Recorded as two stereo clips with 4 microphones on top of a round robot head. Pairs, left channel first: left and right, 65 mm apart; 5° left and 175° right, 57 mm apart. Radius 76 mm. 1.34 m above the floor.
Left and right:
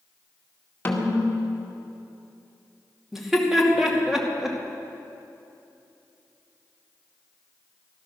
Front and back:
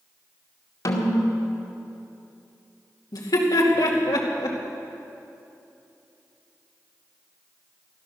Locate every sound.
0.8 s a snare drum: 25° left, 2 m
3.1 s laughter: 5° right, 2.5 m